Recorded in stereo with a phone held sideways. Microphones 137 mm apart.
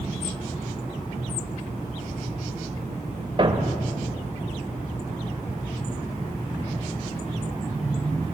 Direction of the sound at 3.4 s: 40° right (ahead or behind).